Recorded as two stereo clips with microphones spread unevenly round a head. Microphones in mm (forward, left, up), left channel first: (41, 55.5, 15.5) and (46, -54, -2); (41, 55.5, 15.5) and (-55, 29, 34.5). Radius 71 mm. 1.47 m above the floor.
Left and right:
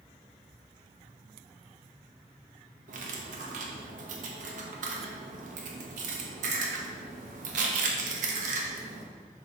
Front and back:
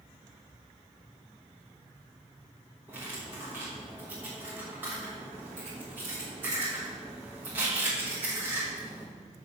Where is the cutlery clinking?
95° right, 1.1 m.